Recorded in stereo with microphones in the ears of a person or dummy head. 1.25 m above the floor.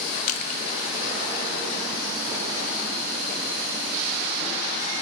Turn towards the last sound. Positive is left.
turn(degrees=40)  # may be behind; listen again after turning